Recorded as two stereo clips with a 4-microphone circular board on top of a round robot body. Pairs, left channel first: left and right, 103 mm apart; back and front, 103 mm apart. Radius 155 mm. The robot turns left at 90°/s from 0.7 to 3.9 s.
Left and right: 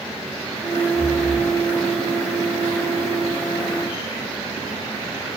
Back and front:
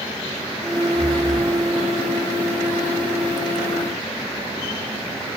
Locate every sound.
0.9 s breathing: 90° left, 1.5 m; by 1.6 s 35° left, 1.5 m